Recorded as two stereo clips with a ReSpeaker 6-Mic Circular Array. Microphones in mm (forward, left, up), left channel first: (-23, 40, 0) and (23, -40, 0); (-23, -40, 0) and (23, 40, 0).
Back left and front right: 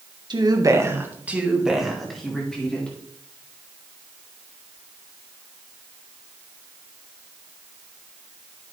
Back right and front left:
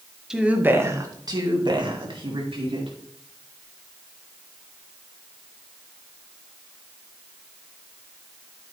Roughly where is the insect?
I don't hear an insect.